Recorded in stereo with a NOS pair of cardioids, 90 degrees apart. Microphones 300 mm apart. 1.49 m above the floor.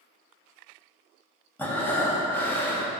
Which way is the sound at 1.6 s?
5° left.